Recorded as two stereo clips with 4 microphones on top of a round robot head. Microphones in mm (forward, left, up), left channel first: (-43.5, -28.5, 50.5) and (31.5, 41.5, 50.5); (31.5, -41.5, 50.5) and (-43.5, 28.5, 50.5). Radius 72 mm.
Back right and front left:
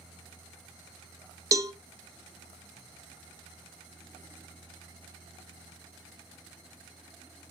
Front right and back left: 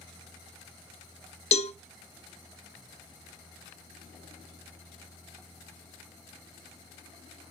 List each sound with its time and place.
1.5 s a cowbell: 20° right, 0.5 m